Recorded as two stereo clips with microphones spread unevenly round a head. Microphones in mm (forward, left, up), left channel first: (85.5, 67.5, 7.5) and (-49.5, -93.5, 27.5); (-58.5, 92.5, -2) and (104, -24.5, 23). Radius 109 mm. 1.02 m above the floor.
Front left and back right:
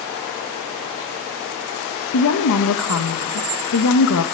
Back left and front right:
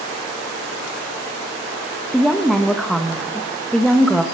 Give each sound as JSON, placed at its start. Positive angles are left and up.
{"t": 2.1, "sound": "a woman speaking", "azimuth_deg": 55, "distance_m": 0.9}